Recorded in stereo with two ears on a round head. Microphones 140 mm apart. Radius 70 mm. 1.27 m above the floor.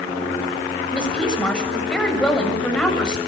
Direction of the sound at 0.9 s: 5° left (ahead or behind).